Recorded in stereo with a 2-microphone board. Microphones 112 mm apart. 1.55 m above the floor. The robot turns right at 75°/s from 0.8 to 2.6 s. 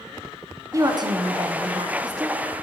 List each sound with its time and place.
0.7 s a woman speaking: 145° right, 0.6 m; by 2.4 s 25° right, 0.6 m